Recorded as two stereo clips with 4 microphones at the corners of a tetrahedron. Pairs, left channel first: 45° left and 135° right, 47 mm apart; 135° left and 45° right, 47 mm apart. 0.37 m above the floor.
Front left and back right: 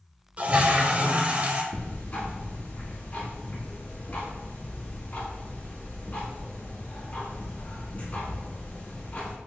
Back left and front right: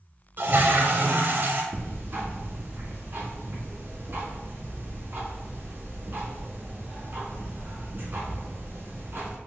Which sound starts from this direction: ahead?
Ticking, at 1.7 s.